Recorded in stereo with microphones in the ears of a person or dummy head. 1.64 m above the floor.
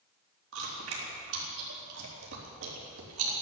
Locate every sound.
0.5 s chewing: 85° right, 3.5 m